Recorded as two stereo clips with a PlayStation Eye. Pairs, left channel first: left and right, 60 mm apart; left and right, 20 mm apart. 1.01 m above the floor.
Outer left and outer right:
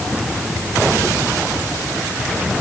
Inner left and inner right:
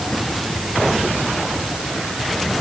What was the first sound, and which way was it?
Only background noise.